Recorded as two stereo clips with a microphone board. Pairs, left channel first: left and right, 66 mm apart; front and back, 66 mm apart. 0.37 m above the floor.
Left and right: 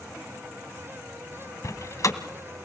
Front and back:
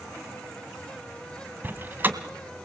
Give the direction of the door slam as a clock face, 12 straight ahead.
8 o'clock.